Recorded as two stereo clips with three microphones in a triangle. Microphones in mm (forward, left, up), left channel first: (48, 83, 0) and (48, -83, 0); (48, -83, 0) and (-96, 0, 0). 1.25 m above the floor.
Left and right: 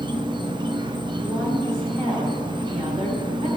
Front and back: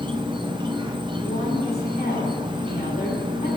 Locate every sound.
0.0 s an insect: 150° right, 0.7 m
1.2 s a woman speaking: 45° right, 2.5 m